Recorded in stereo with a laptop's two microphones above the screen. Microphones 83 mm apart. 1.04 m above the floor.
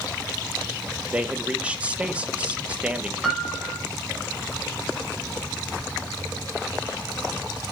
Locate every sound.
1.1 s a man speaking: 15° right (ahead or behind), 1.2 m
3.2 s a piano: centre (ahead or behind), 5 m